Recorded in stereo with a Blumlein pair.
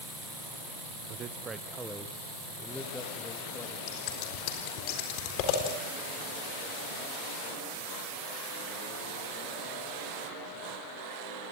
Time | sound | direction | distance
1.1 | a man speaking | 40° right | 0.9 m
3.9 | scissors | 40° left | 4 m